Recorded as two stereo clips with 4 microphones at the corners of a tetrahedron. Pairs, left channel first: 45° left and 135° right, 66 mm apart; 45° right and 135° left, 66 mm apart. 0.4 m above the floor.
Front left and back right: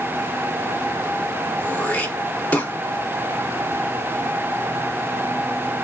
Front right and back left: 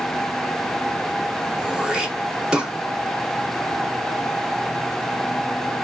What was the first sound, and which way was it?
Throat clearing, 75° left.